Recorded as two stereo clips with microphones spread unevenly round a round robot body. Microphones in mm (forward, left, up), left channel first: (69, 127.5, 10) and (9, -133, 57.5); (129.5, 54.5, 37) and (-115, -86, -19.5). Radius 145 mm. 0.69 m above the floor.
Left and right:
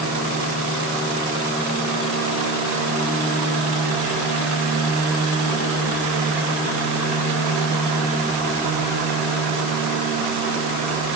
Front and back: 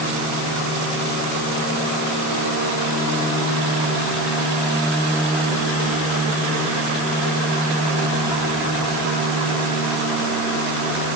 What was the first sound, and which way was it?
Only background noise.